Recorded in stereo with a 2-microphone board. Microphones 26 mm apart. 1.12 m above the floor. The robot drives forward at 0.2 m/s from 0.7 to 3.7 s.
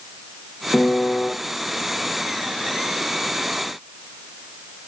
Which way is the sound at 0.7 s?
60° left (ahead or behind).